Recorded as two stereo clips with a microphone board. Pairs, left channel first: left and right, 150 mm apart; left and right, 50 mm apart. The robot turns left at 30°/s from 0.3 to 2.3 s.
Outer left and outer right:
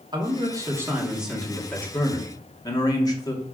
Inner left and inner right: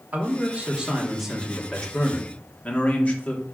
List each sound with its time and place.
0.1 s a man speaking: 150° right, 2.5 m; by 3.5 s 150° left, 2.5 m